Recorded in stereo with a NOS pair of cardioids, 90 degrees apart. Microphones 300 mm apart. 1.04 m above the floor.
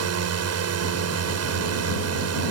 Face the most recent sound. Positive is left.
turn(degrees=-60)